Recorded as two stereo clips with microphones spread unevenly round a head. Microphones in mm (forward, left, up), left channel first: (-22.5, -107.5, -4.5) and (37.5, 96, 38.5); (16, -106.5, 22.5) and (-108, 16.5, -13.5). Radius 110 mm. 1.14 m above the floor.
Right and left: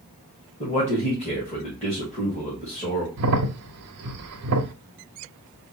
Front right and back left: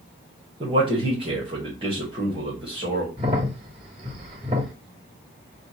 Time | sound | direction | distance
0.6 | a man speaking | 165° right | 1.9 m
3.2 | a crack | 65° left | 0.6 m